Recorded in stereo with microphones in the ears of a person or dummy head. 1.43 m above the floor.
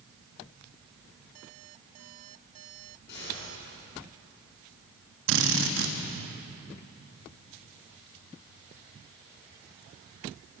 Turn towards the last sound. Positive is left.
turn(degrees=-70)  # may be behind; listen again after turning